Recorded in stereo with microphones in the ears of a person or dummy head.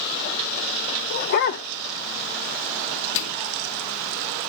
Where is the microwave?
65° left (ahead or behind), 0.9 m.